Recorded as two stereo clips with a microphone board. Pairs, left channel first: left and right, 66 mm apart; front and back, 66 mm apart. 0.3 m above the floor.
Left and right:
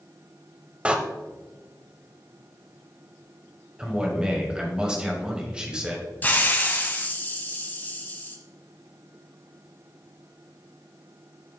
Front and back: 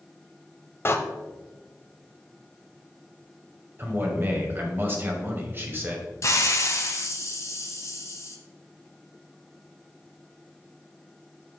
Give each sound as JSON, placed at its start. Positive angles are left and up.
{"t": 0.8, "sound": "a door slam", "azimuth_deg": -25, "distance_m": 0.8}
{"t": 3.8, "sound": "a man speaking", "azimuth_deg": -155, "distance_m": 1.7}
{"t": 6.2, "sound": "a hiss", "azimuth_deg": 30, "distance_m": 1.1}